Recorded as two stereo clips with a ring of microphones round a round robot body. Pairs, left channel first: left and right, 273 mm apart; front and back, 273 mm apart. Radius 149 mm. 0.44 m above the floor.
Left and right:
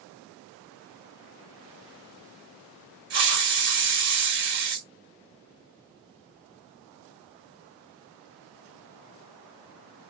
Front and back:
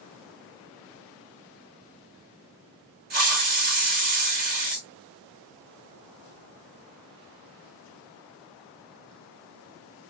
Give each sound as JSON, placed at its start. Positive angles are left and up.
{"t": 3.1, "sound": "a hiss", "azimuth_deg": -130, "distance_m": 2.0}